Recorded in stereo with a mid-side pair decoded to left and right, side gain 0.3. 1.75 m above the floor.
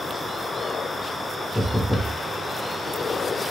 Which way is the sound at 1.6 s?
5° right.